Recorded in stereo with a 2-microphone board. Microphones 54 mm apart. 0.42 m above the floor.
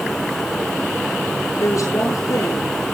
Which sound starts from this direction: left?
A woman speaking, at 1.6 s.